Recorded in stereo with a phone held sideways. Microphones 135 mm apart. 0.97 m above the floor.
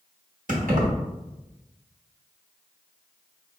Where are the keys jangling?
80° right, 1.1 m.